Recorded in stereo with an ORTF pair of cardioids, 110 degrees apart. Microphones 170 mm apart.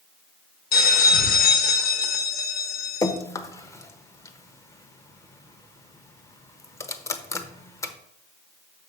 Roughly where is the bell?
Ahead left.